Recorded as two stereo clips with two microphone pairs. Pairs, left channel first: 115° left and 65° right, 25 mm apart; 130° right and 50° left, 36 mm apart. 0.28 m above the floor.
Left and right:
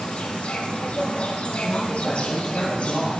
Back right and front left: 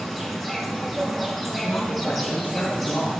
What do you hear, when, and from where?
0.0 s an insect: 145° left, 4.5 m
1.6 s a man speaking: 165° right, 8.5 m